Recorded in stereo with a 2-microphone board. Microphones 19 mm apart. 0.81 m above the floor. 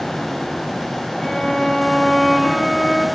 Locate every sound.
1.2 s a violin: 20° left (ahead or behind), 10 m